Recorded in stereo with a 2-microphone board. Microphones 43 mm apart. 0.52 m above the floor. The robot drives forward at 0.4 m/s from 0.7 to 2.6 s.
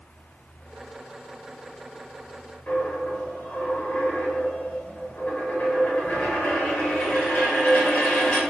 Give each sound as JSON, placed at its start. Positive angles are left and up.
{"t": 2.7, "sound": "a dropped coin", "side_deg": 40, "distance_m": 0.9}